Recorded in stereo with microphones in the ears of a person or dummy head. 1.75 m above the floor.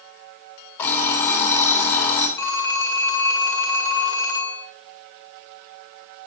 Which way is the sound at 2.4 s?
15° left (ahead or behind).